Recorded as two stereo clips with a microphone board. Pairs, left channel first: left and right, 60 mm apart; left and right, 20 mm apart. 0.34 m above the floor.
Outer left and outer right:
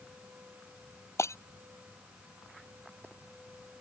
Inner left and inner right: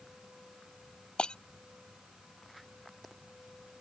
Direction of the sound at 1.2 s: 50° left (ahead or behind).